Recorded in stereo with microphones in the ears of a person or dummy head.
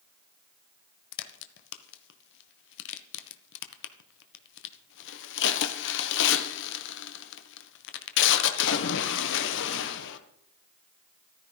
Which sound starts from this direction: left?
A crack, at 1.1 s.